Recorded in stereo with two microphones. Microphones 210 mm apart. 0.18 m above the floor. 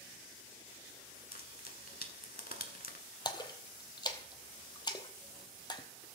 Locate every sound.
1.3 s frying: 45° left (ahead or behind), 1.0 m
3.2 s a splash: 20° left (ahead or behind), 0.8 m